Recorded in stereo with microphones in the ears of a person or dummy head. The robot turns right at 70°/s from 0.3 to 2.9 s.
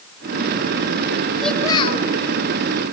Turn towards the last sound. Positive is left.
turn(degrees=105)